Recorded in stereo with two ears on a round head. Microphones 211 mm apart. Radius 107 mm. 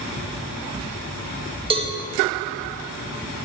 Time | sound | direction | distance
1.7 | a cowbell | 25° right (ahead or behind) | 1.0 m